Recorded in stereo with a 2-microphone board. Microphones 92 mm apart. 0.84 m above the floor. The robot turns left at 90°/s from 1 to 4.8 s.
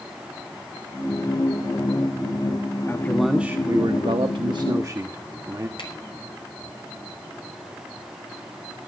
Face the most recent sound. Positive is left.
turn(degrees=80)